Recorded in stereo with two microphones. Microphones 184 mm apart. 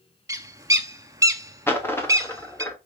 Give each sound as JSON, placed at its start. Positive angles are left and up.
{"t": 0.3, "sound": "a bird", "side_deg": -20, "distance_m": 0.6}
{"t": 1.7, "sound": "a dropped coin", "side_deg": 10, "distance_m": 1.5}